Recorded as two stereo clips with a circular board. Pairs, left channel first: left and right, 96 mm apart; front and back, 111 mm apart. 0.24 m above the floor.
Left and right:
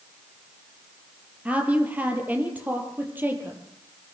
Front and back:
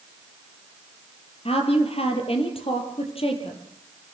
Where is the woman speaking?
15° right, 5.5 m; by 3.6 s 20° right, 6.5 m.